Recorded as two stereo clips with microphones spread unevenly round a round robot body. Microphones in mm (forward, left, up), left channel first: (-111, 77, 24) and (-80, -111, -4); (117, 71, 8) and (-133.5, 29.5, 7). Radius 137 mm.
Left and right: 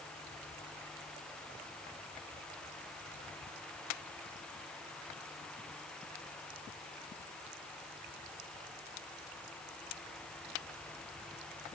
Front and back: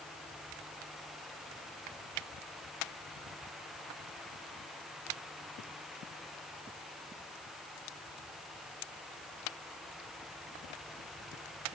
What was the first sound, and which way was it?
Only background noise.